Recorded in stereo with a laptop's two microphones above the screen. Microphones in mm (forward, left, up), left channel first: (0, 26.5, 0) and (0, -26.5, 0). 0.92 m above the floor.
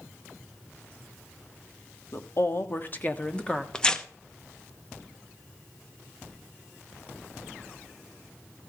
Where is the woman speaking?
55° left (ahead or behind), 1.6 m; by 3.6 s 15° left (ahead or behind), 1.7 m.